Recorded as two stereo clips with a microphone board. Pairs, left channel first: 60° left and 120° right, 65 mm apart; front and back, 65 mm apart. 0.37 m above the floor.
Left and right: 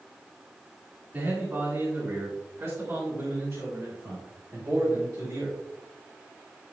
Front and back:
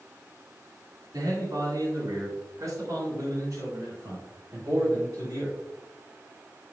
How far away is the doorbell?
I don't hear a doorbell.